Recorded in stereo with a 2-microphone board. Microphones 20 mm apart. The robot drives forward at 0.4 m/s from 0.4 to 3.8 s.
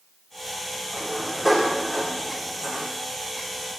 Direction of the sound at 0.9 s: 25° right (ahead or behind).